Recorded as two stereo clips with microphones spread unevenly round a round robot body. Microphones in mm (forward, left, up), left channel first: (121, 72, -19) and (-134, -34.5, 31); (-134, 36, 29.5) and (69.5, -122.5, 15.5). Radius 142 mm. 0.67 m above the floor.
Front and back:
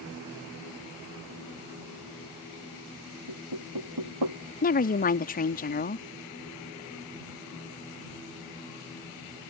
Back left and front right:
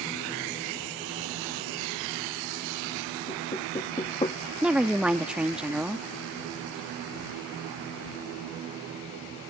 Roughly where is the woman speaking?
Ahead left.